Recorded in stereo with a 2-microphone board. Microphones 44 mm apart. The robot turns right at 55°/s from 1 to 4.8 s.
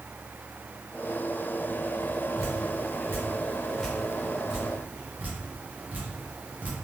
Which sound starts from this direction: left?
Dripping, at 2.4 s.